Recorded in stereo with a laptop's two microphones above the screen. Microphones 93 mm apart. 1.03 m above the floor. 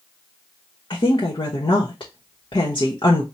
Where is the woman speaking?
55° left (ahead or behind), 1.0 m.